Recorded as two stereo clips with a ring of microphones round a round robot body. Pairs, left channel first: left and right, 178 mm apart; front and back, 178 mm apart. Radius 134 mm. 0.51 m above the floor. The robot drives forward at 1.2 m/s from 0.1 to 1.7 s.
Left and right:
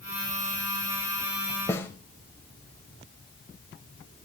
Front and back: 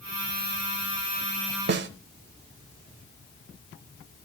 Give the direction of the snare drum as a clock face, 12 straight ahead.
6 o'clock.